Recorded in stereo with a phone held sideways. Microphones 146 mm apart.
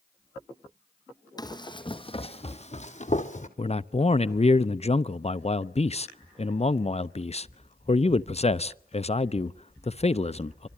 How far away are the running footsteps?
About 1.8 m.